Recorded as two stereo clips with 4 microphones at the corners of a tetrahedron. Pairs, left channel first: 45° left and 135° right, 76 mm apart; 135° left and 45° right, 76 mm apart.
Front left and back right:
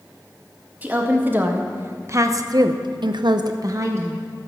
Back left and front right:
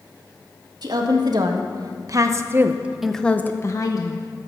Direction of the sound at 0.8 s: 70° right.